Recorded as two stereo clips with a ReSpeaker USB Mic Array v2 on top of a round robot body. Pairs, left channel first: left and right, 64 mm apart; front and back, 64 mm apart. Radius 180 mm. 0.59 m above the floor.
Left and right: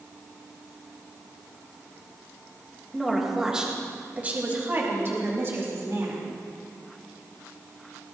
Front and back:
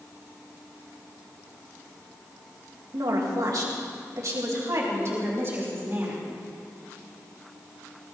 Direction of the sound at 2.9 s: Straight behind.